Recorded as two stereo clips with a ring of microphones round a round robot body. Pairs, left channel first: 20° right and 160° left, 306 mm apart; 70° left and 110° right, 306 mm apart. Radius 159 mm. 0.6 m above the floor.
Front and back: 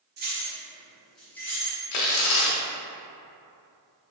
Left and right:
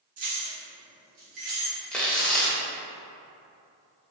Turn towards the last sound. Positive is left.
turn(degrees=-20)